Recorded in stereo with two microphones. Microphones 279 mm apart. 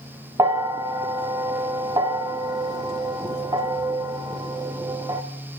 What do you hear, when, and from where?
0.4 s a bell: 15° right (ahead or behind), 0.6 m